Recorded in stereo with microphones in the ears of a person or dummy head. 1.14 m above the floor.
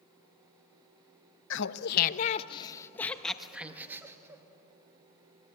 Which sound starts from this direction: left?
Laughter, at 1.5 s.